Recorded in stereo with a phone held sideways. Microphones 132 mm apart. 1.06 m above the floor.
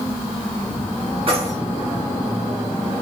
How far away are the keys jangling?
About 6 m.